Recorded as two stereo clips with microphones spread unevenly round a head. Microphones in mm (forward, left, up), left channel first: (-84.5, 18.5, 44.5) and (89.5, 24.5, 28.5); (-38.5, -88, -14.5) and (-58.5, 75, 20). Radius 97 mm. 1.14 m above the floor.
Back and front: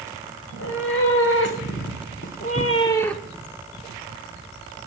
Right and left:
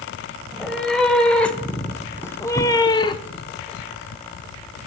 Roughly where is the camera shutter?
I don't hear a camera shutter.